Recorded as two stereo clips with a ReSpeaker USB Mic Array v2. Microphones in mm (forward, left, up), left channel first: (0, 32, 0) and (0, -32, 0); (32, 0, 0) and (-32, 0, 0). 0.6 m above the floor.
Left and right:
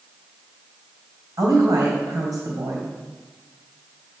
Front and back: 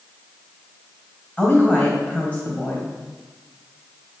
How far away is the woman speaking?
About 2.5 m.